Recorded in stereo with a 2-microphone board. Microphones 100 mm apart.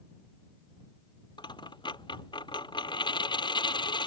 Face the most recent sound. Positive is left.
turn(degrees=50)  # may be behind; listen again after turning